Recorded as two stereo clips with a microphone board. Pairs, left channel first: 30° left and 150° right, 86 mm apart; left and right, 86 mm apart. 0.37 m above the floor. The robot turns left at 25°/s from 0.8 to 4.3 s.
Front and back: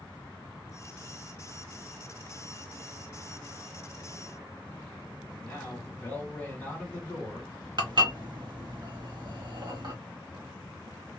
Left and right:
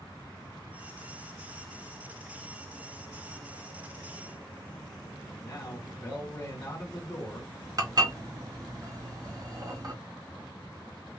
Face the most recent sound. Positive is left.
turn(degrees=-130)